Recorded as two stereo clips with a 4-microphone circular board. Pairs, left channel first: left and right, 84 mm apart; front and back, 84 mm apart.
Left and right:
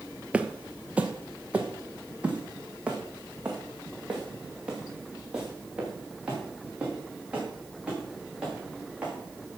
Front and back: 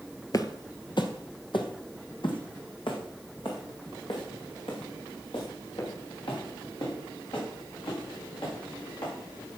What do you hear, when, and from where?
0.3 s footsteps: 20° right, 0.8 m; by 9.6 s 10° right, 8 m